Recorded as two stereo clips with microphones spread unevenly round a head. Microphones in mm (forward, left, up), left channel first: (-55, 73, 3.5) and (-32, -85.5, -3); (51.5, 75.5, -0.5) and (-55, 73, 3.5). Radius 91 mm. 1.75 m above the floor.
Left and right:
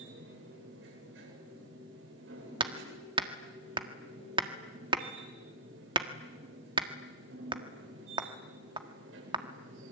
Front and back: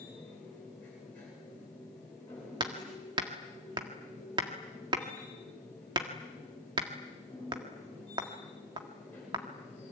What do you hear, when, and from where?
0.0 s a machine running: 80° right, 8.5 m
2.6 s hammering: 135° right, 1.6 m